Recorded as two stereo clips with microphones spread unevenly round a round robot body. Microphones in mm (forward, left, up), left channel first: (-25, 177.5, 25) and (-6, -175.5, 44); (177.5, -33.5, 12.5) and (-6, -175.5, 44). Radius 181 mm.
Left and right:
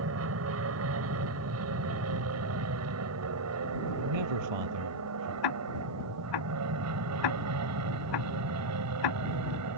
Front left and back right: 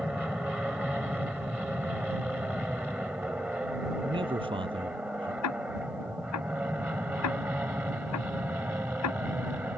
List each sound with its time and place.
0.0 s an aircraft: 55° right; by 9.8 s 60° right
4.0 s a man speaking: 75° right
5.4 s ticking: 65° left